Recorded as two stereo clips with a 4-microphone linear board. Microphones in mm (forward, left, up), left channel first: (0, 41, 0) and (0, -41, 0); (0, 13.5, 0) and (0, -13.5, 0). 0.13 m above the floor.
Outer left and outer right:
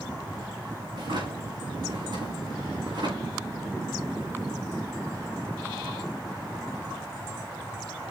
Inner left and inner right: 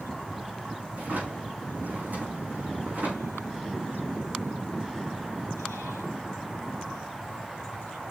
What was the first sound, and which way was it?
A drawer, 60° right (ahead or behind).